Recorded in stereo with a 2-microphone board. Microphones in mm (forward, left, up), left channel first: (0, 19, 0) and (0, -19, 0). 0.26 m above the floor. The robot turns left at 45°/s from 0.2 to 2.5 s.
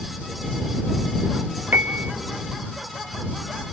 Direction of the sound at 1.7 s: 55° right (ahead or behind).